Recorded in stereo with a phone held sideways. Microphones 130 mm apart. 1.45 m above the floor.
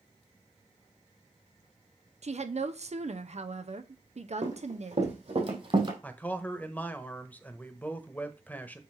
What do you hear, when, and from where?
2.2 s a woman speaking: 60° right (ahead or behind), 0.8 m
4.4 s running footsteps: 70° right (ahead or behind), 4 m; by 5.9 s 40° right (ahead or behind), 2.5 m
6.0 s a man speaking: 10° left (ahead or behind), 1.0 m